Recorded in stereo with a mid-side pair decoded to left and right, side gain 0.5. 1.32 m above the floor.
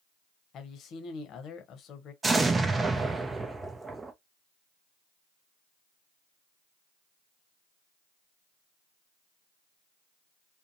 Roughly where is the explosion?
Ahead.